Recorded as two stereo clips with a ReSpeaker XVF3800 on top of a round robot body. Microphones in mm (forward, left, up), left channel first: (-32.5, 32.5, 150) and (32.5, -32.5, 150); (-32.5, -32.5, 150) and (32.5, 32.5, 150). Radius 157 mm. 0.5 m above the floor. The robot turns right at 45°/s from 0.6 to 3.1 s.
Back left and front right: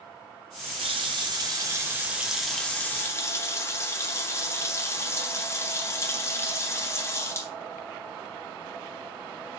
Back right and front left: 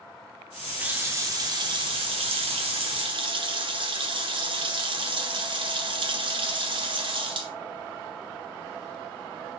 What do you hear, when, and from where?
0.8 s a running tap: 30° right, 1.7 m; by 7.5 s 75° left, 1.7 m